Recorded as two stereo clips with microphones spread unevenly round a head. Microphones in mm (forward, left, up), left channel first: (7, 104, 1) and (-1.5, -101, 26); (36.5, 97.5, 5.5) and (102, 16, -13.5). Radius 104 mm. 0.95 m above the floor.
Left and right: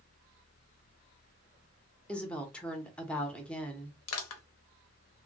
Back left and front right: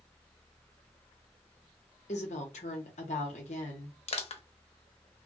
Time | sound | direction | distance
2.1 | a woman speaking | 170° left | 0.7 m
4.1 | crushing | 110° left | 0.7 m